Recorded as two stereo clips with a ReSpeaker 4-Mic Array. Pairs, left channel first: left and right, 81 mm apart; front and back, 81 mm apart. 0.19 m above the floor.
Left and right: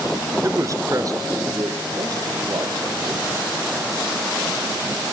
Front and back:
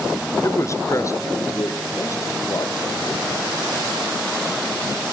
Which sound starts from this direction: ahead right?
A man speaking, at 0.4 s.